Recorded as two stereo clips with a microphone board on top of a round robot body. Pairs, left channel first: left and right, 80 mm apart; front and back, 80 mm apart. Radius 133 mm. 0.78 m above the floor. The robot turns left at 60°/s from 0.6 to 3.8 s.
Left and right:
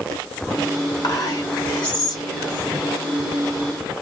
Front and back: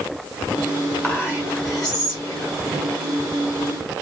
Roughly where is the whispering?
Left.